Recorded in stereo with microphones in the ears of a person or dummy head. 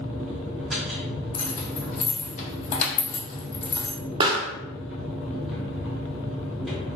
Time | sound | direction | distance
0.0 | a machine running | centre (ahead or behind) | 0.7 m
1.3 | keys jangling | 45° left (ahead or behind) | 0.8 m
4.2 | a pop | 25° right (ahead or behind) | 0.6 m